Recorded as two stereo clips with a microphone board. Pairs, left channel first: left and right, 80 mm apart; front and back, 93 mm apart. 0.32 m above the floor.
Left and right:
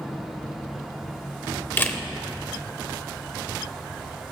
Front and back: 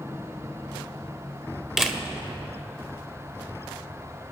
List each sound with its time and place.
1.8 s a camera shutter: 100° left, 0.7 m